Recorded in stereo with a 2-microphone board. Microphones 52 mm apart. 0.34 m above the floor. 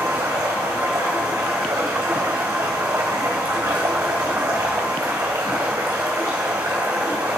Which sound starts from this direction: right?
Running water, at 0.0 s.